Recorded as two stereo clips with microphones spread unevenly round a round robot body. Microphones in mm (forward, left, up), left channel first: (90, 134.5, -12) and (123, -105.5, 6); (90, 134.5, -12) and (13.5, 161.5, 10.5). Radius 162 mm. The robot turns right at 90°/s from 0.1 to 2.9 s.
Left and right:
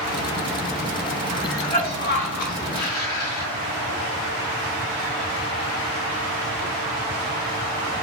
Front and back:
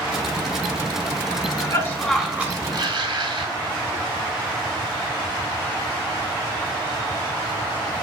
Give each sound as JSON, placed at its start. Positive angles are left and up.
{"t": 1.3, "sound": "a cough", "azimuth_deg": -20, "distance_m": 1.8}